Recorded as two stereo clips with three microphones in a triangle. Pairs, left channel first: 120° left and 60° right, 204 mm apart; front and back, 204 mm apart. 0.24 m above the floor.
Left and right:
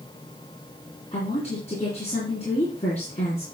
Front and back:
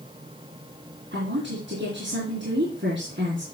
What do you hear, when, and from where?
1.1 s a woman speaking: 175° left, 3 m